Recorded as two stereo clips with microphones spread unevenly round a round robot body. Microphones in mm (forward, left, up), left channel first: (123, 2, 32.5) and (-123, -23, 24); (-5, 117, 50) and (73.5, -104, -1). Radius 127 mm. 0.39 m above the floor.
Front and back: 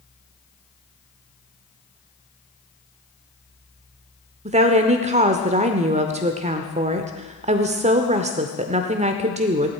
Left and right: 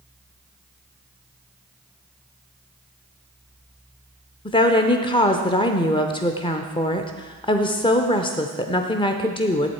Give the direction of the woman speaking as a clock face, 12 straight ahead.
6 o'clock.